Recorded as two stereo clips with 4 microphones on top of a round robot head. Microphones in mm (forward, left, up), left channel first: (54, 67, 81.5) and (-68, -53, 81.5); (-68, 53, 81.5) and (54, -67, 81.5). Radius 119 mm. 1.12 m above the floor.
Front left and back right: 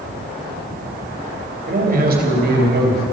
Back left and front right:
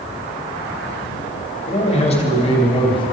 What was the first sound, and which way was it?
A man speaking, 175° right.